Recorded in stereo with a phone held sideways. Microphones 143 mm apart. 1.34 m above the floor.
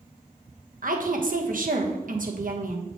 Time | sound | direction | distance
0.8 | a woman speaking | 65° right (ahead or behind) | 1.1 m